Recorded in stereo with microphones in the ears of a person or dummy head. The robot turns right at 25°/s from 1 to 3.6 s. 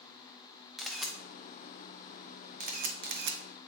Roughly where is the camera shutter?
Centre.